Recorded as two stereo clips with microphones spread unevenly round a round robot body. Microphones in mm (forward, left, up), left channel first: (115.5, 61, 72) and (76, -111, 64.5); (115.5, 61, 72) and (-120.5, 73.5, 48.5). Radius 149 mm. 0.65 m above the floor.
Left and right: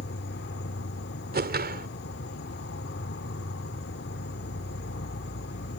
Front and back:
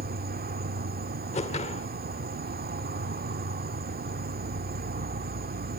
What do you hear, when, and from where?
0.0 s an insect: 120° left
1.3 s a whoosh: 70° right